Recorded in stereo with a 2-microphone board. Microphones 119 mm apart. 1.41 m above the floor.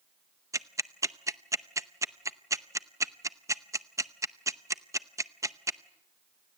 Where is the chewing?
I don't hear chewing.